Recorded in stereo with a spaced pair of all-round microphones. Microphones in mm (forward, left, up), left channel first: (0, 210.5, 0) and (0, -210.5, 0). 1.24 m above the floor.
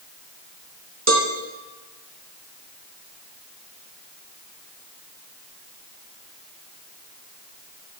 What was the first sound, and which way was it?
A cowbell, 35° right (ahead or behind).